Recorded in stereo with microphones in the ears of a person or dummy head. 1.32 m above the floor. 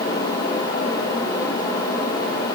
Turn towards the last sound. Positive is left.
No sound to turn to.